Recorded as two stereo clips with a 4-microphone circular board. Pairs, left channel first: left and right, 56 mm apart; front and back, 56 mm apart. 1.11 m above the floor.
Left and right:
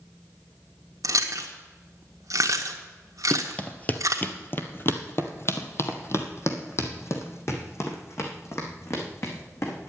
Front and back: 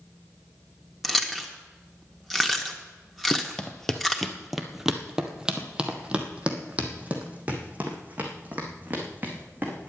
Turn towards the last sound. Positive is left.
turn(degrees=125)